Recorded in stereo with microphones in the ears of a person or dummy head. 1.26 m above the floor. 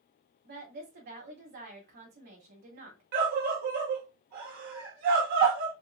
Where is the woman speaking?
45° right (ahead or behind), 2 m.